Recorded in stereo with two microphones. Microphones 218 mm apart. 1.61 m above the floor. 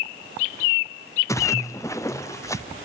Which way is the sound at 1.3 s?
15° left (ahead or behind).